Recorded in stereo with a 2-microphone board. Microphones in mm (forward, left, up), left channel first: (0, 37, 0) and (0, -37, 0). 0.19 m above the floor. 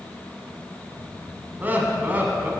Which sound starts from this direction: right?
Laughter, at 1.6 s.